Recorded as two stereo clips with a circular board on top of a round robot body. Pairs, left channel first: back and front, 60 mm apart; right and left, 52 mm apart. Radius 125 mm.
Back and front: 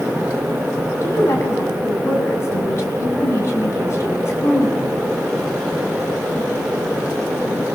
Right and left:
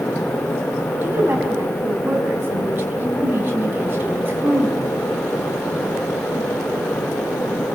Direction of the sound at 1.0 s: 135° left.